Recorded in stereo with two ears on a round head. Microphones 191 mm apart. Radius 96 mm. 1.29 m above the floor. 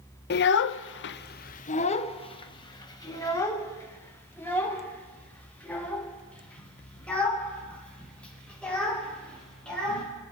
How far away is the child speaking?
About 0.5 m.